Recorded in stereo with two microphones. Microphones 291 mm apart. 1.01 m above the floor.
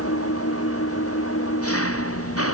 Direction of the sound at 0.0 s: 50° left (ahead or behind).